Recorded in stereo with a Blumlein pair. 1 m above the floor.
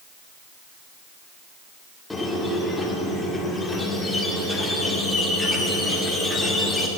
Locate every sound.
2.1 s a squeak: 5° left, 1.7 m